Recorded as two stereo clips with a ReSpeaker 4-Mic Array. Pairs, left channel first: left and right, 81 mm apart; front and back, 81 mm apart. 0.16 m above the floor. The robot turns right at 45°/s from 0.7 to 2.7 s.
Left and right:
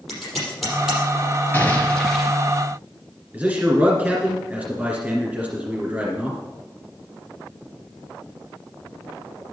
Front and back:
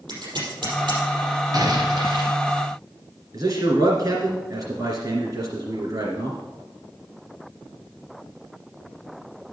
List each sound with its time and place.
0.1 s scissors: straight behind, 5 m; by 1.0 s 165° right, 5 m
1.5 s an explosion: 150° left, 2.5 m; by 2.4 s 170° right, 2.5 m
3.3 s a man speaking: 155° right, 2 m